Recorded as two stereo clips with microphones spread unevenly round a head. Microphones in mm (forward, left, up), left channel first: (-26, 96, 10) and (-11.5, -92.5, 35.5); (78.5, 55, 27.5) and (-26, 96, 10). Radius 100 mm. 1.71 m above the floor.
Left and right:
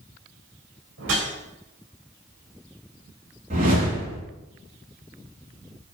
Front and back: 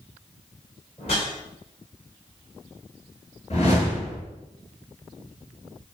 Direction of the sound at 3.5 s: 35° right.